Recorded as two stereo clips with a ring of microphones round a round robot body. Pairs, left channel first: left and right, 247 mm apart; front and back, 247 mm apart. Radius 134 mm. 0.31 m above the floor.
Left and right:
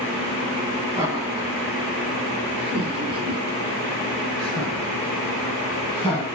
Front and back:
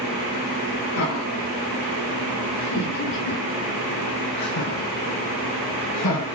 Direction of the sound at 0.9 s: 10° right.